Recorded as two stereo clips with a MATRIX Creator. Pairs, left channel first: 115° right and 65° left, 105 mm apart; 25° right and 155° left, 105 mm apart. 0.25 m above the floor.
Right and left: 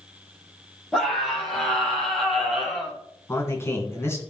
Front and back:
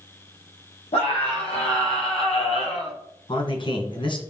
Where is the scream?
25° right, 7.5 m; by 3.0 s 15° right, 5.5 m.